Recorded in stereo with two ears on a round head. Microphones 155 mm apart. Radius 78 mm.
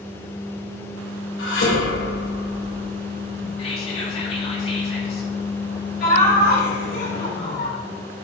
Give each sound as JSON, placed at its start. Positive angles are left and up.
{"t": 1.4, "sound": "dishes clattering", "side_deg": 75, "distance_m": 3.0}
{"t": 3.6, "sound": "whispering", "side_deg": 35, "distance_m": 2.0}
{"t": 6.0, "sound": "laughter", "side_deg": 70, "distance_m": 4.0}